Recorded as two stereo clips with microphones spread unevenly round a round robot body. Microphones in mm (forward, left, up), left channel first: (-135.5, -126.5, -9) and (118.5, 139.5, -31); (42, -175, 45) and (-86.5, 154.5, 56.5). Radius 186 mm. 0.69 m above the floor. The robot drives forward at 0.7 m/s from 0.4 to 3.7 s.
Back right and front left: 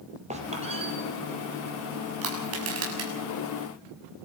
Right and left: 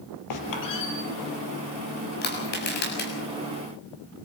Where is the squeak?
25° right, 3.5 m; by 0.9 s 30° right, 3.5 m.